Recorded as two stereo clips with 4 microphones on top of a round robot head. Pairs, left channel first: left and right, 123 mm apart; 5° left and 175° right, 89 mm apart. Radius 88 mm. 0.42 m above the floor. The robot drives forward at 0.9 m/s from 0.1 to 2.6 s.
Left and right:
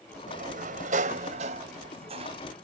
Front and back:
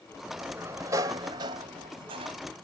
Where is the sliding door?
95° right; by 2.4 s 140° right.